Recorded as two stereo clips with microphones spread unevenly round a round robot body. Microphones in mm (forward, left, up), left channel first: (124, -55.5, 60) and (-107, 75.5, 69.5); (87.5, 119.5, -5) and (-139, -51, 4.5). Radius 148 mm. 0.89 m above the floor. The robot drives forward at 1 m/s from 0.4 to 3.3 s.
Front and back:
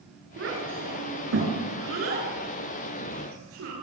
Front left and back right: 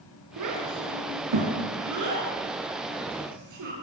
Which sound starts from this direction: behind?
A child speaking, at 0.4 s.